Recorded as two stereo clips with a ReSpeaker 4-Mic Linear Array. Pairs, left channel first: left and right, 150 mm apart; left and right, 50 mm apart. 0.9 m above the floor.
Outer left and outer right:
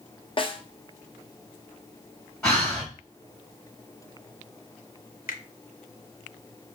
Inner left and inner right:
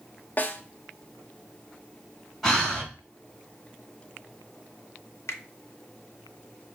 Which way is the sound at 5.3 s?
75° left (ahead or behind).